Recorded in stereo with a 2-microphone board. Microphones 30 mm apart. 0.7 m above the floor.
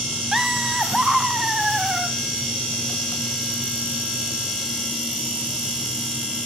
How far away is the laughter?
About 0.8 m.